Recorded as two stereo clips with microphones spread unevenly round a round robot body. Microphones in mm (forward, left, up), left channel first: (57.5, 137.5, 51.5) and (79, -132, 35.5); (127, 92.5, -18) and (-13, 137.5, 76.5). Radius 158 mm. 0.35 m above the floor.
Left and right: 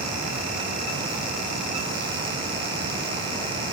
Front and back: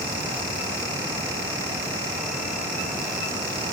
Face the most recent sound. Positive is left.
No sound to turn to.